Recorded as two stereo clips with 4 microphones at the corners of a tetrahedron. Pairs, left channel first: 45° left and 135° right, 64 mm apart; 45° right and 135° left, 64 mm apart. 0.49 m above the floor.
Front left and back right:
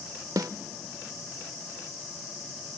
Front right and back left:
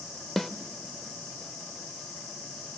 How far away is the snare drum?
About 0.8 m.